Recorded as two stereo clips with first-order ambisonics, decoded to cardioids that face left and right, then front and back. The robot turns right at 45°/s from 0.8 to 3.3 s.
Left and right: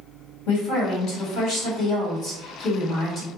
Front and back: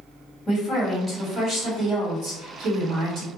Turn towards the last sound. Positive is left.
turn(degrees=-160)